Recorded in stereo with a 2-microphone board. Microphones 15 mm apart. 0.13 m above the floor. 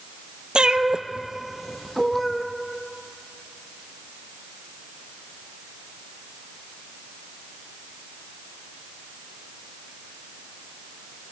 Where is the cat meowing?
70° right (ahead or behind), 1.1 m; by 2.5 s 15° left (ahead or behind), 1.9 m.